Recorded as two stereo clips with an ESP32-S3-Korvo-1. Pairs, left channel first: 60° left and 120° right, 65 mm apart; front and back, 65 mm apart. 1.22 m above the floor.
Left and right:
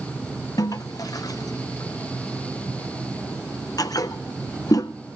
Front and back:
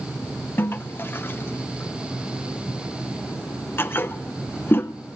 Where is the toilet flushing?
50° left, 0.5 m.